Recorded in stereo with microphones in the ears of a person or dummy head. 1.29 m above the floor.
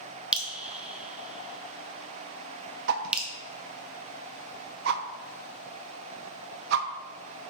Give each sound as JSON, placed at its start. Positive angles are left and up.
{"t": 0.3, "sound": "dripping", "side_deg": 0, "distance_m": 0.8}
{"t": 2.9, "sound": "a whoosh", "side_deg": -55, "distance_m": 0.7}